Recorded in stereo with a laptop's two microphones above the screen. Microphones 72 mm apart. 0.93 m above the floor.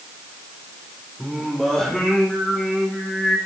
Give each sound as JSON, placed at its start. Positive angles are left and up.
{"t": 1.2, "sound": "singing", "side_deg": 10, "distance_m": 3.5}